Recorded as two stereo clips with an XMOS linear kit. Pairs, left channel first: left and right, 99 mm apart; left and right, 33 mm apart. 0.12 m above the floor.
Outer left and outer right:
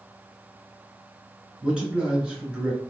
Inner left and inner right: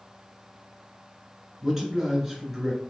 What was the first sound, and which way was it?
A man speaking, 10° right (ahead or behind).